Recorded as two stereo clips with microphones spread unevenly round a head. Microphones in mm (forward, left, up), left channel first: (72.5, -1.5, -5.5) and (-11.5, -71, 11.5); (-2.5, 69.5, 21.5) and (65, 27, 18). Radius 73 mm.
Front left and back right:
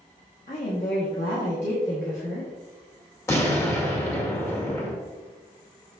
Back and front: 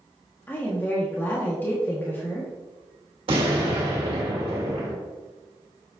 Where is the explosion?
25° right, 2 m.